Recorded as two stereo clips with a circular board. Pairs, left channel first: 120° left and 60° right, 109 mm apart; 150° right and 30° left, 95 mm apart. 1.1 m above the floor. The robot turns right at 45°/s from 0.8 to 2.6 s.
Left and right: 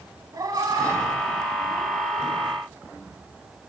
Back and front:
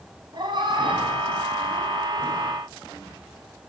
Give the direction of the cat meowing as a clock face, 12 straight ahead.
12 o'clock.